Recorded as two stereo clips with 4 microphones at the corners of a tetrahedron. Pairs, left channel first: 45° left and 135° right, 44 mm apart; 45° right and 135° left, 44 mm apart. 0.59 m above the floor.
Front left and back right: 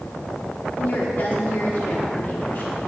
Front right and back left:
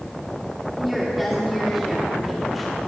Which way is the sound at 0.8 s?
45° left.